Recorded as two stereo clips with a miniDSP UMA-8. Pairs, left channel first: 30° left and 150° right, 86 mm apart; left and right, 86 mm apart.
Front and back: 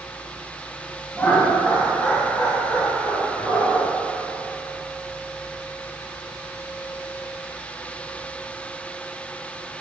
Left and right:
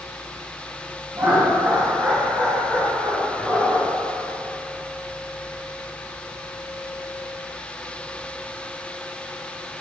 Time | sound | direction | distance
1.1 | laughter | 40° right | 2 m